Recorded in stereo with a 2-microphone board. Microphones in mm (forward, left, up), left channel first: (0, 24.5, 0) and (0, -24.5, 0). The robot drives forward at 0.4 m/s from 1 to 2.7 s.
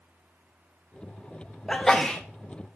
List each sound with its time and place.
1.7 s a sneeze: 10° left (ahead or behind), 0.8 m